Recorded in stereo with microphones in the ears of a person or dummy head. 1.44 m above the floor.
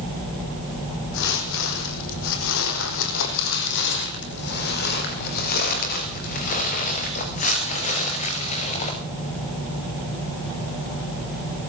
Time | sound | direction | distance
1.1 | footsteps | 70° left (ahead or behind) | 4 m